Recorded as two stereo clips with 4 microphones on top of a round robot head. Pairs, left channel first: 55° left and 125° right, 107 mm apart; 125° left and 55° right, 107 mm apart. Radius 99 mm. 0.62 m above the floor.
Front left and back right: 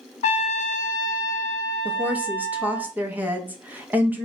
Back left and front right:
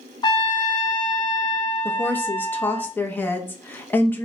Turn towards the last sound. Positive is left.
turn(degrees=175)